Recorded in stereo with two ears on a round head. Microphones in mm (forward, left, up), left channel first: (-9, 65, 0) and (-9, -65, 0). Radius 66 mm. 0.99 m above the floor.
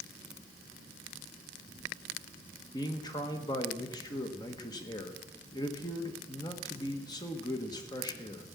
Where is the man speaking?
30° left (ahead or behind), 1.3 m.